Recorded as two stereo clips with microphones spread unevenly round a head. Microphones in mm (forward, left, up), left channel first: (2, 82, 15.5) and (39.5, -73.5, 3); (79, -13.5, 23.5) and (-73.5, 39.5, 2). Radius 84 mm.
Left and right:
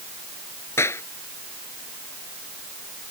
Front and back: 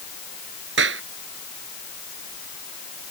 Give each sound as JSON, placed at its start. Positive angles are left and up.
{"t": 0.8, "sound": "a clap", "azimuth_deg": 180}